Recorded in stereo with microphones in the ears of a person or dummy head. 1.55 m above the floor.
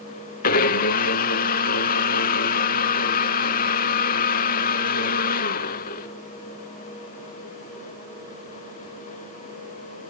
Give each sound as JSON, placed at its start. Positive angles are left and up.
{"t": 0.4, "sound": "a blender", "side_deg": 50, "distance_m": 0.6}